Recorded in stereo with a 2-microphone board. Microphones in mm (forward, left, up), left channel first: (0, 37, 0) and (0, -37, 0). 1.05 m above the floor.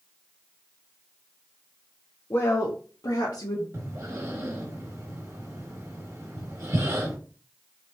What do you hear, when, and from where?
2.3 s a woman speaking: 40° left (ahead or behind), 0.6 m; by 3.6 s 70° left (ahead or behind), 1.5 m
3.7 s breathing: 45° right (ahead or behind), 1.4 m